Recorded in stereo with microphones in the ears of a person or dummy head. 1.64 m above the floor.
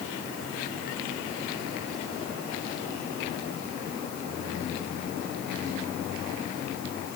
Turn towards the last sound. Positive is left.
No sound to turn to.